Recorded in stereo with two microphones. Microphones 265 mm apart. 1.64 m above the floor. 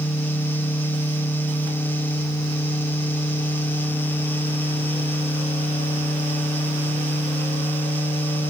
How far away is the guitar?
I don't hear a guitar.